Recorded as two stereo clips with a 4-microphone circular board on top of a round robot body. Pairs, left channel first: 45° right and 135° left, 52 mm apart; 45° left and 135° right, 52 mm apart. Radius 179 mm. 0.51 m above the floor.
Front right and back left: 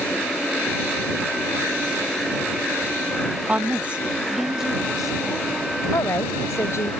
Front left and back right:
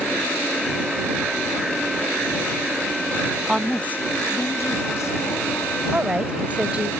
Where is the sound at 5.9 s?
70° right.